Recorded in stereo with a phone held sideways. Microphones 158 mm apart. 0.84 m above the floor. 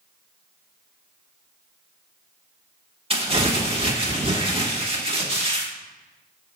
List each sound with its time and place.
3.1 s crumpling: 35° right (ahead or behind), 1.2 m